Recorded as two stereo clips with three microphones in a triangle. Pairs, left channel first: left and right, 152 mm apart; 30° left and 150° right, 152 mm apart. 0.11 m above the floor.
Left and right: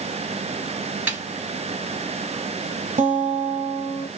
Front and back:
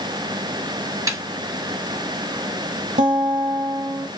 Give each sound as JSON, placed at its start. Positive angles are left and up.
{"t": 1.1, "sound": "a snare drum", "azimuth_deg": -150, "distance_m": 1.7}
{"t": 3.0, "sound": "a guitar", "azimuth_deg": -115, "distance_m": 1.0}